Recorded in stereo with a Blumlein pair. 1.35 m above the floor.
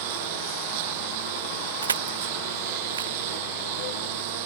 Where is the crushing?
70° right.